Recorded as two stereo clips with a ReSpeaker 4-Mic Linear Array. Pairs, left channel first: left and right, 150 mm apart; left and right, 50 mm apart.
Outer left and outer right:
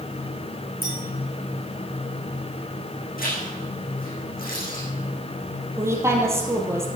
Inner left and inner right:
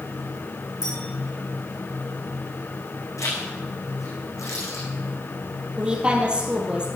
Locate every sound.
0.8 s a clink: 75° left (ahead or behind), 5.5 m
3.2 s a zipper: 75° left (ahead or behind), 5.5 m
5.8 s a woman speaking: 20° right (ahead or behind), 3 m